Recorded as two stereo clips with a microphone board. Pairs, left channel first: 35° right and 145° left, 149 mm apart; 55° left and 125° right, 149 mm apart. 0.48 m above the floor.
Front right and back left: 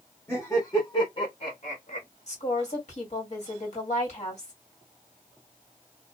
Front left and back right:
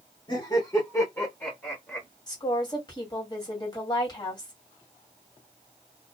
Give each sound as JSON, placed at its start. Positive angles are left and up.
{"t": 0.3, "sound": "laughter", "azimuth_deg": 30, "distance_m": 1.3}
{"t": 2.3, "sound": "a woman speaking", "azimuth_deg": 0, "distance_m": 2.0}